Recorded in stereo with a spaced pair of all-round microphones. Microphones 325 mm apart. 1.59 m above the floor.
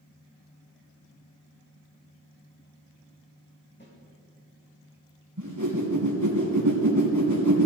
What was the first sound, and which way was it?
A snare drum, 35° left (ahead or behind).